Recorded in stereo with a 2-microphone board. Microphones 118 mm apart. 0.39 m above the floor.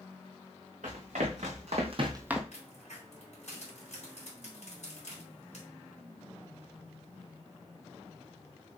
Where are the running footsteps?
80° right, 2.5 m; by 2.4 s centre (ahead or behind), 0.7 m.